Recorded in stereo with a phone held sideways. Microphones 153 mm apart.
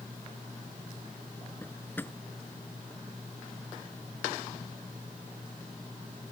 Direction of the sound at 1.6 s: 15° left (ahead or behind).